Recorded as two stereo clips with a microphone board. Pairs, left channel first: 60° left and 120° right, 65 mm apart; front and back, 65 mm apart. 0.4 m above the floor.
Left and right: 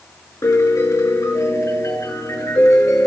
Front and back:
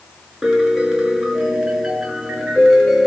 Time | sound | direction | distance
0.4 | a piano | 100° left | 6 m